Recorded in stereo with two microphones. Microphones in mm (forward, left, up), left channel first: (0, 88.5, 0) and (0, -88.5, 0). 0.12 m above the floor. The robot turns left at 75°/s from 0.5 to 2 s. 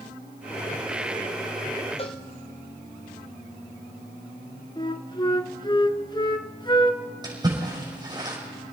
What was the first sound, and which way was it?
A cowbell, 35° left (ahead or behind).